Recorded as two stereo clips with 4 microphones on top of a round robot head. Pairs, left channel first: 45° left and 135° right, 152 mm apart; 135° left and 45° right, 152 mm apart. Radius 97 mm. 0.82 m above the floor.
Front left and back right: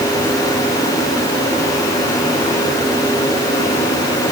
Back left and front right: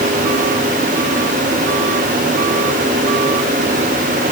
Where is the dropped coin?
No dropped coin in this recording.